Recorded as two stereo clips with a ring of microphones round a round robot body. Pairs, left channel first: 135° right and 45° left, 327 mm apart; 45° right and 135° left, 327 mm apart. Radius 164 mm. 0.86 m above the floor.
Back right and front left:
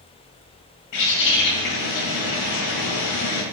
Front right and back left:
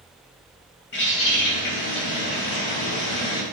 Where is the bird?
100° right, 3.5 m.